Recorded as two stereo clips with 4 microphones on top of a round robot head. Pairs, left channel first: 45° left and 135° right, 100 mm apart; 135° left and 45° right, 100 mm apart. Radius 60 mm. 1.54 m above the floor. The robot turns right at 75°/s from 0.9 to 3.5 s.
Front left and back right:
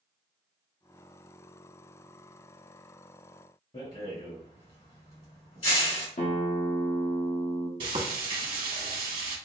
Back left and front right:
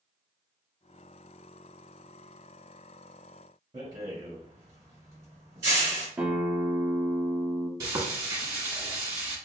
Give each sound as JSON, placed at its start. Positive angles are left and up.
{"t": 3.7, "sound": "a rattle", "azimuth_deg": 10, "distance_m": 2.0}
{"t": 6.2, "sound": "a guitar", "azimuth_deg": 30, "distance_m": 0.9}
{"t": 7.8, "sound": "frying", "azimuth_deg": -100, "distance_m": 1.2}